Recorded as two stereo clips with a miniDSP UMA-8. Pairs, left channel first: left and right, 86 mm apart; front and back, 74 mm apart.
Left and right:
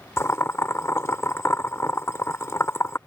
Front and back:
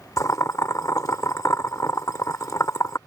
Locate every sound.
0.2 s boiling: 35° left